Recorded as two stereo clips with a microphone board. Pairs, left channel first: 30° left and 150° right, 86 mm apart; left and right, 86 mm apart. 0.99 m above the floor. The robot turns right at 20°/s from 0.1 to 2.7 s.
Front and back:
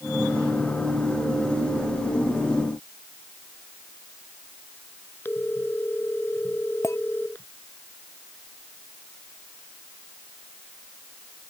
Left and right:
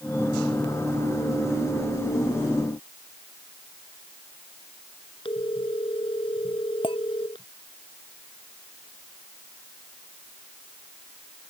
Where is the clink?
85° left.